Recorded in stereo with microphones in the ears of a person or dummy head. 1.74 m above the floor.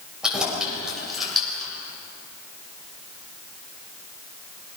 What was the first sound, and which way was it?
Keys jangling, 5° right (ahead or behind).